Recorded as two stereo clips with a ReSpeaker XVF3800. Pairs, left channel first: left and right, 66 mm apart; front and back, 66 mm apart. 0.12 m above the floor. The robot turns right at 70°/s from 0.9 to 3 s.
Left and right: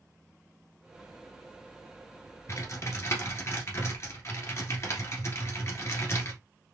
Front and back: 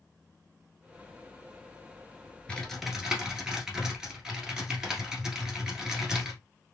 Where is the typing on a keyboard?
70° left, 1.3 m; by 6.4 s 105° left, 1.3 m.